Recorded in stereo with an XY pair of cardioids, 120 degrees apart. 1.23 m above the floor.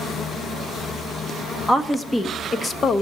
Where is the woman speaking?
10° left, 1.5 m; by 3.0 s 40° left, 1.2 m.